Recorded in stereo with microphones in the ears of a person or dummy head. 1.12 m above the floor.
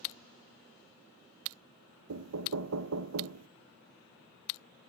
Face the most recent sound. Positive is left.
turn(degrees=-85)